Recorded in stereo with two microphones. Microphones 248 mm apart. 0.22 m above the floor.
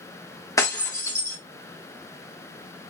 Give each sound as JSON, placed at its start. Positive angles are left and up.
{"t": 0.6, "sound": "breaking glass", "side_deg": 15, "distance_m": 1.8}